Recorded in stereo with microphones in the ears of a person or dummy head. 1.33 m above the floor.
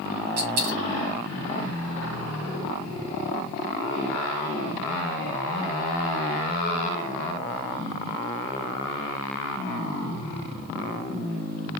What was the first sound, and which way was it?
A dropped coin, 40° right (ahead or behind).